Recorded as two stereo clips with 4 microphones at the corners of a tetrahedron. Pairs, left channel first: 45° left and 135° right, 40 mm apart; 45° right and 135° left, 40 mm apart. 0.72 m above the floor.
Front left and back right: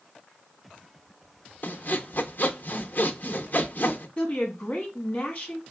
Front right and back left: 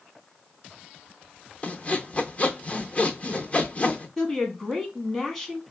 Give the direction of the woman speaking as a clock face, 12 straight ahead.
11 o'clock.